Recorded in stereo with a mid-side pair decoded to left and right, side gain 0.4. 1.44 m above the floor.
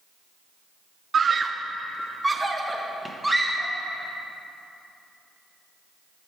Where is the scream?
50° right, 0.6 m; by 3.7 s 5° right, 2 m.